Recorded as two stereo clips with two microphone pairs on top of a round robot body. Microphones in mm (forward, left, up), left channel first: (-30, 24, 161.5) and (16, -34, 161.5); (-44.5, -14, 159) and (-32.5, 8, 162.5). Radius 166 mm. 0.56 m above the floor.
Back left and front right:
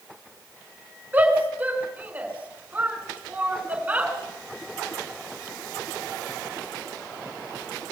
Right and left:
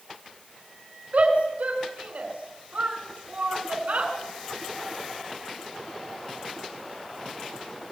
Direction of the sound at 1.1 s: 15° left.